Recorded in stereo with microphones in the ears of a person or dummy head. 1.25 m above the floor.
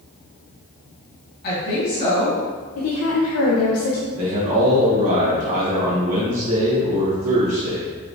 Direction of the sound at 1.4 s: 50° left (ahead or behind).